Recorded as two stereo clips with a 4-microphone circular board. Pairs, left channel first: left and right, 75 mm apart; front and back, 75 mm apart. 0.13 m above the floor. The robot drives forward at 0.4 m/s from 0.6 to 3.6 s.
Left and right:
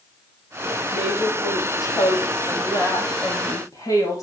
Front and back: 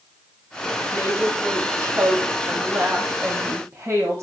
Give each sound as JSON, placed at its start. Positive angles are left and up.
{"t": 0.9, "sound": "a woman speaking", "azimuth_deg": 120, "distance_m": 7.0}